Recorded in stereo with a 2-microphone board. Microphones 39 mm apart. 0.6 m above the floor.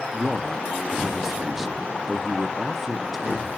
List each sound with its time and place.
0.1 s a man speaking: 5° right (ahead or behind), 0.7 m